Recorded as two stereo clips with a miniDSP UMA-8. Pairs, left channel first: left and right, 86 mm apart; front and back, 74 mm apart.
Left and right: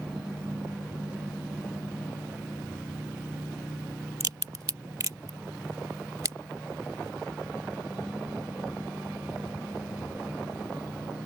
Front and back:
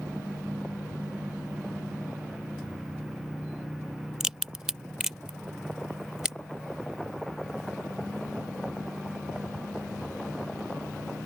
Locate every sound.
4.2 s a crack: 100° right